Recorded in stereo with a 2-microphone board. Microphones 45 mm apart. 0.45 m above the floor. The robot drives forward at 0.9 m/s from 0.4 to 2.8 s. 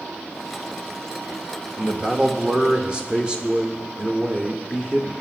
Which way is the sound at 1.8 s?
20° right (ahead or behind).